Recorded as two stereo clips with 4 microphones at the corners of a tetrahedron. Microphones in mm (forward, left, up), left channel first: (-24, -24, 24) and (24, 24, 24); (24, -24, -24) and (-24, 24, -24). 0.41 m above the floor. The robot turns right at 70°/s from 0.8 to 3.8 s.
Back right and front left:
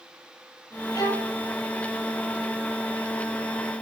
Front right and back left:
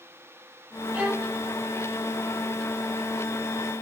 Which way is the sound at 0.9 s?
160° right.